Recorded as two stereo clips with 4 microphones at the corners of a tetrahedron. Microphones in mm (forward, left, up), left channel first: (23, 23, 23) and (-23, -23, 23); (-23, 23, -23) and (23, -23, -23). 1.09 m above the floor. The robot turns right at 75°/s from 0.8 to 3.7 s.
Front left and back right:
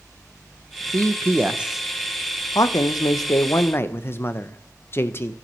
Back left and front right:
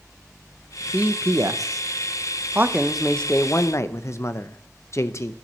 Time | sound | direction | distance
0.9 | a man speaking | 115° right | 0.6 m